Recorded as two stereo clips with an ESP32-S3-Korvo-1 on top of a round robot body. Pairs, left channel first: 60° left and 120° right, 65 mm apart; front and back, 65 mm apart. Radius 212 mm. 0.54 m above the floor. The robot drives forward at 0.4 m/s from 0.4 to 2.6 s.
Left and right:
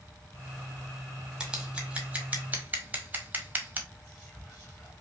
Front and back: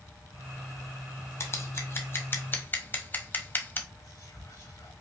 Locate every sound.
1.4 s scissors: 40° right, 1.6 m; by 3.8 s 55° right, 1.3 m
3.9 s whispering: 5° right, 2.5 m